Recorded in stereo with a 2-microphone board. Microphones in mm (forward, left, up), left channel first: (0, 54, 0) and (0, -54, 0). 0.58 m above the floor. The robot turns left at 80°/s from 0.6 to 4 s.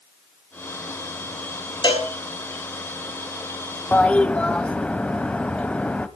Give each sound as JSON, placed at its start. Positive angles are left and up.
{"t": 1.8, "sound": "a cowbell", "side_deg": 45, "distance_m": 5.5}
{"t": 3.9, "sound": "a toilet flushing", "side_deg": 20, "distance_m": 1.2}